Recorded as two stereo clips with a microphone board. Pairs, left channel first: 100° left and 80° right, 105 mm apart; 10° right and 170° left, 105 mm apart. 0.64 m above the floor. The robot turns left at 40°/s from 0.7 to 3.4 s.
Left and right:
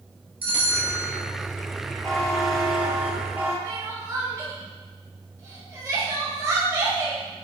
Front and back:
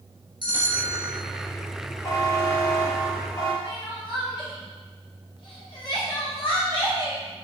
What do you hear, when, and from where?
0.4 s a bell: 150° right, 1.7 m; by 1.1 s 170° right, 1.7 m
2.0 s a buzzer: 20° left, 1.2 m; by 3.5 s 35° right, 1.2 m
3.6 s crying: 30° right, 1.4 m